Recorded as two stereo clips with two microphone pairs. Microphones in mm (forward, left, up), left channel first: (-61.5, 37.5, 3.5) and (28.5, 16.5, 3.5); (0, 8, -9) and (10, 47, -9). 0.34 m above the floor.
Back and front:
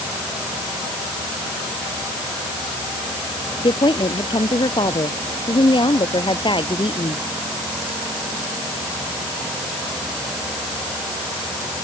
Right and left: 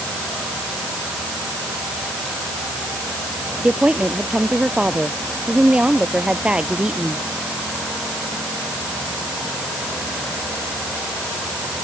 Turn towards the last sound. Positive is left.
turn(degrees=140)